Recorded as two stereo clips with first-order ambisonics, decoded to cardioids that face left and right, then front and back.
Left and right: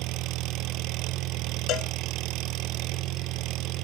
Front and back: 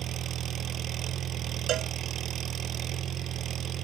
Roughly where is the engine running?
Behind right.